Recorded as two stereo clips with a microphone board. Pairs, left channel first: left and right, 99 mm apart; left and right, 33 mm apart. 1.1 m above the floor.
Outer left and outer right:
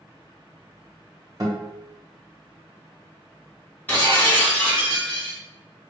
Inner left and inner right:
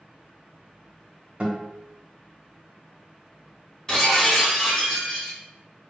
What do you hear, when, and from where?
1.4 s a guitar: 40° right (ahead or behind), 1.0 m
3.9 s breaking glass: 15° left (ahead or behind), 1.6 m